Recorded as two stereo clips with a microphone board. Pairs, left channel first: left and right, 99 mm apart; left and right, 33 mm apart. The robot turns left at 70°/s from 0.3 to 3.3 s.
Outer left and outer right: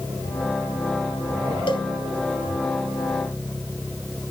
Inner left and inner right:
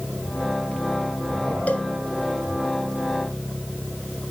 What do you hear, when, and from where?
1.7 s a cowbell: 55° left (ahead or behind), 0.8 m; by 1.9 s 50° left (ahead or behind), 0.8 m